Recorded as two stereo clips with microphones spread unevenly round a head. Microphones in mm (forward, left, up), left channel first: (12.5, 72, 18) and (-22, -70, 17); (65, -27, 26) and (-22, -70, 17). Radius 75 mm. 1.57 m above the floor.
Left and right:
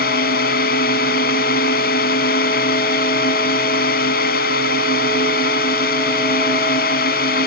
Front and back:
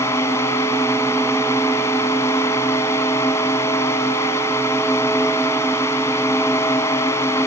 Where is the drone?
100° left.